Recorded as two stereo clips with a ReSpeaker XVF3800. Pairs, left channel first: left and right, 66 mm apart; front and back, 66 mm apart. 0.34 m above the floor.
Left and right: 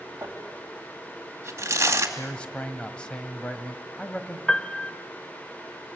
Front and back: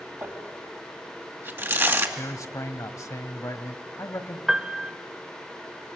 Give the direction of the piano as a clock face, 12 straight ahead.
8 o'clock.